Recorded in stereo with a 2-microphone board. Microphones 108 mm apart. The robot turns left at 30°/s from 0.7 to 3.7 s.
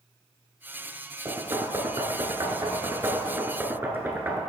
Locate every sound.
1.2 s knocking: 30° right (ahead or behind), 1.1 m; by 4.4 s 20° right (ahead or behind), 1.1 m